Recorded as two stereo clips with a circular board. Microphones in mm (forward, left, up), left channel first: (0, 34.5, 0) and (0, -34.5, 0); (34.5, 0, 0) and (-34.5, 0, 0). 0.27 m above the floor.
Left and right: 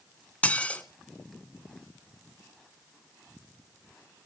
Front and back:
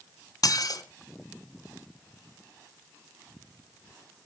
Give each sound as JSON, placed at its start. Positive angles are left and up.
{"t": 0.4, "sound": "dishes clattering", "azimuth_deg": 20, "distance_m": 1.6}